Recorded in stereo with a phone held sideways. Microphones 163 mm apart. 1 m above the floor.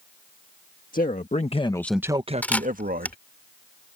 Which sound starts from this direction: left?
A man speaking, at 0.9 s.